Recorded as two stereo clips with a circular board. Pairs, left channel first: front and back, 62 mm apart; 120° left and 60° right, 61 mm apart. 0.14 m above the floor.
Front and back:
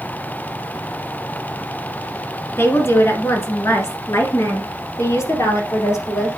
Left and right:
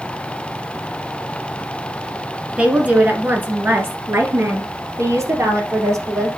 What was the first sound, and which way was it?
A woman speaking, straight ahead.